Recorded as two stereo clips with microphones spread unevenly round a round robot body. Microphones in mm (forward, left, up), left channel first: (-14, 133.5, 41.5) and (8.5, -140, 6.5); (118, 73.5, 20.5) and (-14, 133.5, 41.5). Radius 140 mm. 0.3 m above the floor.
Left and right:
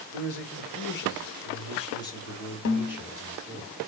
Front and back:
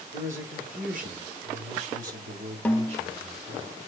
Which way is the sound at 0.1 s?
130° left.